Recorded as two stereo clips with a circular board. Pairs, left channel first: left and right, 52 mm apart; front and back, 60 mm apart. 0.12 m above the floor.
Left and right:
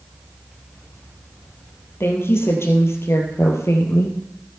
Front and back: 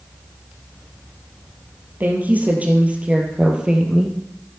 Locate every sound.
2.0 s a woman speaking: 120° left, 3.5 m; by 4.2 s 100° left, 3.5 m